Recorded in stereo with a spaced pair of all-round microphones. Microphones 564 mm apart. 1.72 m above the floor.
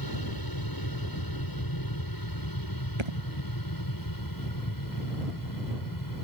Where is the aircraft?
40° left (ahead or behind); by 6.2 s 35° left (ahead or behind).